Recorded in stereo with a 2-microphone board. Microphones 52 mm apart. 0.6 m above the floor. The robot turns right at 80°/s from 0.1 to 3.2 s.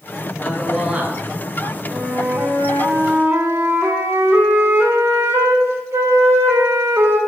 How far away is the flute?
About 2 m.